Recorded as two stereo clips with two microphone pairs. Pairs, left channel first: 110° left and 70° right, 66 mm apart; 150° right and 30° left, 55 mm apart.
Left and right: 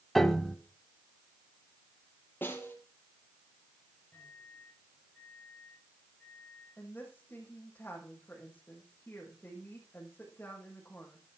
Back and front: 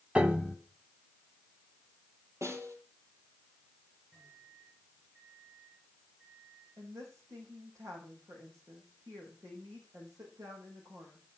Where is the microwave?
45° left, 5 m.